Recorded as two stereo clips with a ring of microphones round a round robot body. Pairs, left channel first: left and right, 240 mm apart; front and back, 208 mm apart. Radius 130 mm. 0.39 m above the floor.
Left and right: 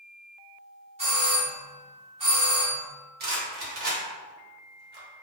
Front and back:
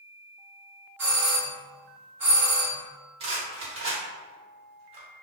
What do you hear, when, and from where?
1.0 s a doorbell: 110° right, 1.5 m
3.2 s a rattle: 125° right, 1.0 m